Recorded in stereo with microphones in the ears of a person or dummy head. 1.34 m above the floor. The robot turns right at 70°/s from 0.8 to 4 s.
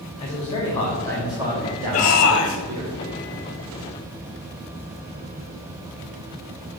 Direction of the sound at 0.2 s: 155° left.